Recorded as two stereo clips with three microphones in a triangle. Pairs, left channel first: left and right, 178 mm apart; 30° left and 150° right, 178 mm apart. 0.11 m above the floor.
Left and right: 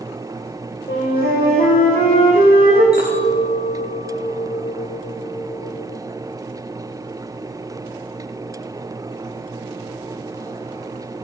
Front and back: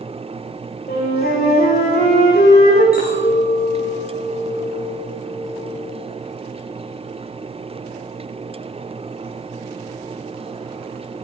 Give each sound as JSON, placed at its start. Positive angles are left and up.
{"t": 0.9, "sound": "a flute", "azimuth_deg": 55, "distance_m": 6.5}
{"t": 2.9, "sound": "a clink", "azimuth_deg": 60, "distance_m": 5.5}